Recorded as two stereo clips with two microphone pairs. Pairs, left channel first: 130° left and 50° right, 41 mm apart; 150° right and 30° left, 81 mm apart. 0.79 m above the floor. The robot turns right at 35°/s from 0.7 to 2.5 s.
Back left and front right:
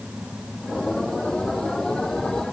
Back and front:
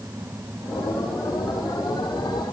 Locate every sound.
Only background noise.